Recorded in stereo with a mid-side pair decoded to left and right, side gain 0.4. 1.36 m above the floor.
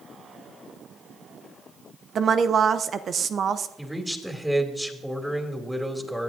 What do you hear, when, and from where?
2.1 s a woman speaking: 55° right, 0.7 m
3.8 s a man speaking: straight ahead, 2.5 m